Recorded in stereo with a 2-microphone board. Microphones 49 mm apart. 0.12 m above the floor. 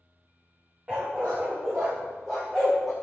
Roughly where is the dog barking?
Right.